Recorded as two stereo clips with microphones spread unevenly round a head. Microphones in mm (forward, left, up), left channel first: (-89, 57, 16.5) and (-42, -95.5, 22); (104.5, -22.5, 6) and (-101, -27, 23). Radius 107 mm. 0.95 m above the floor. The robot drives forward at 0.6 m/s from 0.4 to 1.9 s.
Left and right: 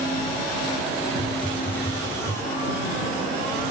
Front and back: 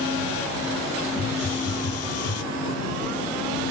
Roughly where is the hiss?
Ahead.